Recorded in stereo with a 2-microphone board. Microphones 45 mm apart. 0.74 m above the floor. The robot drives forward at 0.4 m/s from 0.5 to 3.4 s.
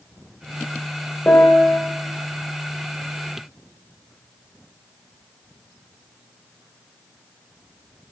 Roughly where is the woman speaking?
I don't hear a woman speaking.